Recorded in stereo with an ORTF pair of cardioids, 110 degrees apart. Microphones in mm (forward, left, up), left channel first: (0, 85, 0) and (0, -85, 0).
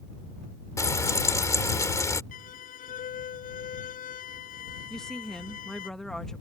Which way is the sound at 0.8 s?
20° left.